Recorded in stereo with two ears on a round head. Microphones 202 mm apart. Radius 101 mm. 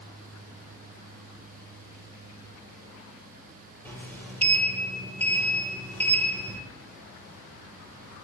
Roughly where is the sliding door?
Centre.